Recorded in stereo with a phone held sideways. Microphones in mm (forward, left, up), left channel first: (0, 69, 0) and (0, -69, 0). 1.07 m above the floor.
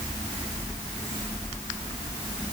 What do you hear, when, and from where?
Only background noise.